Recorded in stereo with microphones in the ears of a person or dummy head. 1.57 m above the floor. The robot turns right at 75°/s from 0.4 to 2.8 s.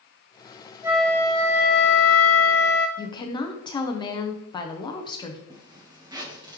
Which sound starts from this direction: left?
A woman speaking, at 3.0 s.